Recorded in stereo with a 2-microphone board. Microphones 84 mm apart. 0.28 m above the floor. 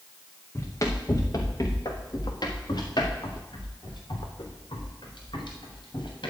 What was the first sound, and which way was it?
Running footsteps, 35° left (ahead or behind).